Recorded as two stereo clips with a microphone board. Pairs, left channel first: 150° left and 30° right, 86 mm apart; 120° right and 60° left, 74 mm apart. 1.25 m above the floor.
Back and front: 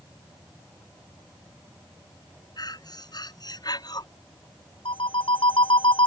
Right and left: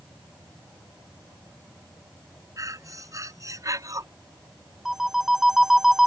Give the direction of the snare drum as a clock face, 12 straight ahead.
No snare drum in this recording.